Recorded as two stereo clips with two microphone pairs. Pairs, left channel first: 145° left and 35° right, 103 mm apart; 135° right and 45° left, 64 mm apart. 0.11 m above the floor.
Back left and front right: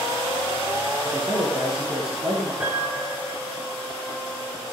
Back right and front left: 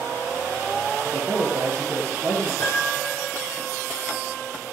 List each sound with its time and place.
1.0 s a man speaking: 10° right, 9 m
2.6 s a piano: 100° right, 5 m